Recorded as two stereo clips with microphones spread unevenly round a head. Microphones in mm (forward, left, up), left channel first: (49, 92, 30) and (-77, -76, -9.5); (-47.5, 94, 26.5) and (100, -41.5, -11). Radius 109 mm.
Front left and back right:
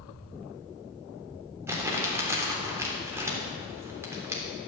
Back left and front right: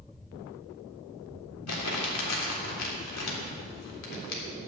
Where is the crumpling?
155° left, 3.5 m.